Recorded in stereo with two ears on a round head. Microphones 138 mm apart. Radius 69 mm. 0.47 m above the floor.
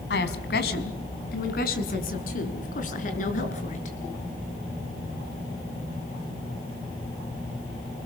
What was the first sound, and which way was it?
A woman speaking, 75° left (ahead or behind).